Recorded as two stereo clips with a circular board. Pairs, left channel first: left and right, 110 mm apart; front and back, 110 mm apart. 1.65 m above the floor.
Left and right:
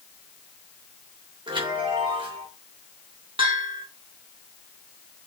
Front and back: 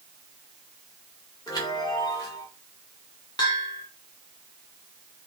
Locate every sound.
1.5 s a chime: 50° right, 3.5 m
3.4 s a bell: 50° right, 3 m